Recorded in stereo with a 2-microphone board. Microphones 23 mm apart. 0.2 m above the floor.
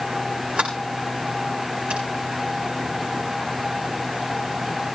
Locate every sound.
0.6 s a sliding door: 85° right, 6 m